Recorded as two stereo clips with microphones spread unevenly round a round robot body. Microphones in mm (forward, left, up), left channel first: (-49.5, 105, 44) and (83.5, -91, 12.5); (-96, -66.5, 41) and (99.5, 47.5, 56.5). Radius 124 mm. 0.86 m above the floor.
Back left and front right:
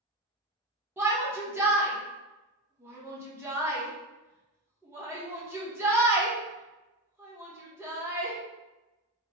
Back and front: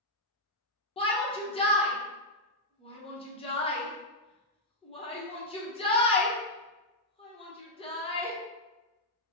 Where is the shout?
115° right, 0.9 m.